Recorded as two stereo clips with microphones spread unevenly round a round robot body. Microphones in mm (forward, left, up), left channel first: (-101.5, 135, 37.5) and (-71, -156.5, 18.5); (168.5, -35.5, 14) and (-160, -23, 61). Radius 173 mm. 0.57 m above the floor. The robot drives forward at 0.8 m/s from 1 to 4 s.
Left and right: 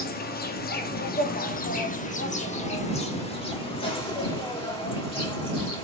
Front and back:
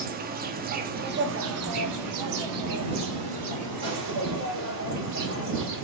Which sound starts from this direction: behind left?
An insect, at 0.0 s.